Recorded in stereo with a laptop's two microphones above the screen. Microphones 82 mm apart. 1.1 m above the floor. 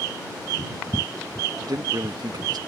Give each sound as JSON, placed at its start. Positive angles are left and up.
{"t": 1.6, "sound": "a man speaking", "side_deg": -60}